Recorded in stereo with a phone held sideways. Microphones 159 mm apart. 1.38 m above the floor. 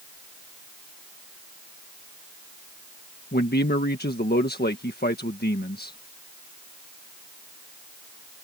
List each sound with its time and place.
3.3 s a man speaking: 80° left